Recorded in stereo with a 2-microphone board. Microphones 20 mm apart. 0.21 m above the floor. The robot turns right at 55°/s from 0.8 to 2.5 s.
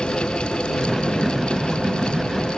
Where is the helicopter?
135° left; by 2.6 s 135° right.